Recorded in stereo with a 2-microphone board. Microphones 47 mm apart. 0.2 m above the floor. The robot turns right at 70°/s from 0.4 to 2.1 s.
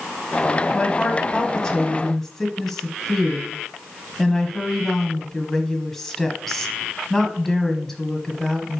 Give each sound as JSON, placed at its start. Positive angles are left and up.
{"t": 0.7, "sound": "a woman speaking", "side_deg": 20, "distance_m": 1.1}